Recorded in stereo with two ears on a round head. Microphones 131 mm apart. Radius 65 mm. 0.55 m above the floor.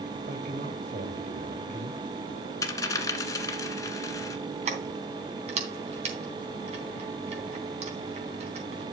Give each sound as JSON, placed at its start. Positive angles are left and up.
{"t": 0.3, "sound": "a man speaking", "side_deg": -55, "distance_m": 2.5}
{"t": 2.6, "sound": "a dropped coin", "side_deg": 25, "distance_m": 1.3}
{"t": 4.7, "sound": "keys jangling", "side_deg": -45, "distance_m": 3.0}